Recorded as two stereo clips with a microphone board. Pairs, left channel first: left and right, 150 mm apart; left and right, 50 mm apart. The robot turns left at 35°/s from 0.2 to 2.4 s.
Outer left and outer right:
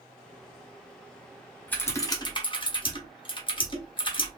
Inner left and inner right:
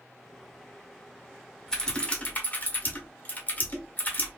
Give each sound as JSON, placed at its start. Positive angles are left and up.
{"t": 1.7, "sound": "typing on a keyboard", "side_deg": 10, "distance_m": 0.9}